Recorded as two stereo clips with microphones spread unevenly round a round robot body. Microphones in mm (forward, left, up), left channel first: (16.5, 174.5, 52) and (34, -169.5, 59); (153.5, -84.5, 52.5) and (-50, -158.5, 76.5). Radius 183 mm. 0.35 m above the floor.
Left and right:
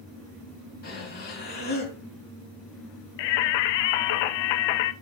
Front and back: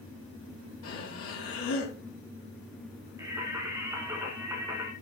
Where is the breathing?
30° left, 3.5 m.